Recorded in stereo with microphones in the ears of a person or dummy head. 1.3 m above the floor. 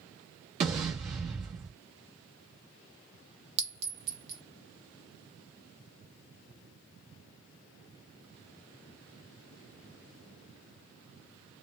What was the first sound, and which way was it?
An explosion, 25° right (ahead or behind).